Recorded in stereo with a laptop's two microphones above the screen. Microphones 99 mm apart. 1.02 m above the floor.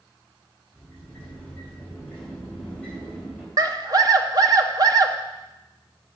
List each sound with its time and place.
0.7 s a sliding door: 10° left (ahead or behind), 3.5 m
3.6 s a scream: 45° right (ahead or behind), 1.3 m